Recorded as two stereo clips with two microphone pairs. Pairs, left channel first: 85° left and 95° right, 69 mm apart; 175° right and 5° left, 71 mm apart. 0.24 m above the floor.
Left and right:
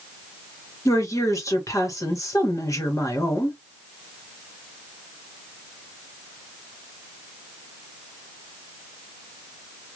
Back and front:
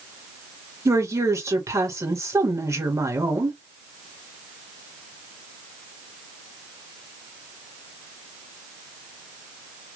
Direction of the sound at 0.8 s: 45° left.